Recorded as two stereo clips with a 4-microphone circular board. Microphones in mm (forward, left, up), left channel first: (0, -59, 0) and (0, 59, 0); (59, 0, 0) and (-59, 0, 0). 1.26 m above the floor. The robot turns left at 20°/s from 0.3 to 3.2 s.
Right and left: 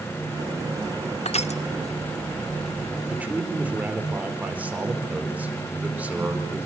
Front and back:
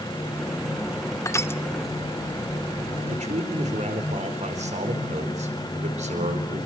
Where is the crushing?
65° right, 0.9 m; by 1.6 s 70° right, 0.9 m.